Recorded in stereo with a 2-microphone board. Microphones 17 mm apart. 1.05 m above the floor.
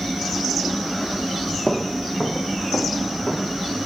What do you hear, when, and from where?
1.7 s footsteps: 50° left (ahead or behind), 1.9 m; by 3.6 s 75° left (ahead or behind), 4.5 m